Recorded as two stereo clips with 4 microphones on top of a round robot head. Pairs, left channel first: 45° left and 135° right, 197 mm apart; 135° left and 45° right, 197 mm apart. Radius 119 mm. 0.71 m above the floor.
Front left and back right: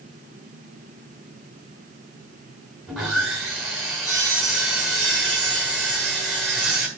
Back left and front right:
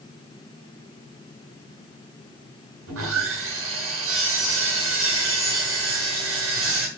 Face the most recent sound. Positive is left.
turn(degrees=-45)